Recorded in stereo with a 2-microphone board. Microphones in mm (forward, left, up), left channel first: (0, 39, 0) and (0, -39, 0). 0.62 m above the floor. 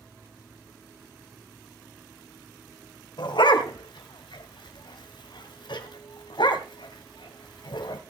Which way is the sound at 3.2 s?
85° left.